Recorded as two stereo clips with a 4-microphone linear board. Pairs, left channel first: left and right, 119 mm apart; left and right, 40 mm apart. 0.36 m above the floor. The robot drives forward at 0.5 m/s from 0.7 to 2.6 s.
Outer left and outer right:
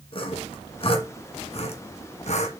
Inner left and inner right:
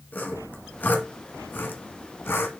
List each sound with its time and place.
0.1 s sawing: 50° left (ahead or behind), 1.8 m; by 2.5 s 75° left (ahead or behind), 1.4 m